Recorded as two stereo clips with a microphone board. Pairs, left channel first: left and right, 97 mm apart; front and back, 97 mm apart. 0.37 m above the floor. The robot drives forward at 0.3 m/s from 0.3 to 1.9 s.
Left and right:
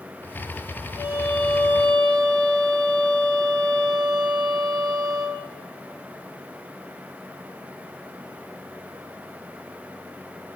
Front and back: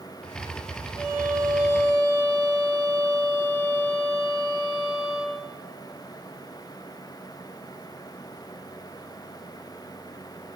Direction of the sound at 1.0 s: 110° left.